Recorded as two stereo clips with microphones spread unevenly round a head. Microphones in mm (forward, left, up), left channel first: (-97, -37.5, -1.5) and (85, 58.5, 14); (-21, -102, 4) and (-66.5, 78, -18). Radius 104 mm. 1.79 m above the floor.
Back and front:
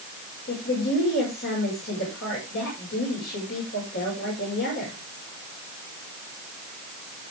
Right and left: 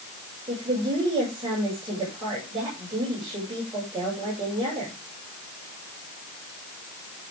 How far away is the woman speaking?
About 6.5 m.